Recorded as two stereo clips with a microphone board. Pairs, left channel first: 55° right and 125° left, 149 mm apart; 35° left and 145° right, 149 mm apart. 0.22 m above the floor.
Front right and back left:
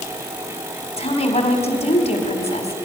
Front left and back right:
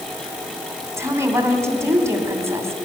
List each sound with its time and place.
1.0 s a woman speaking: 80° right, 1.7 m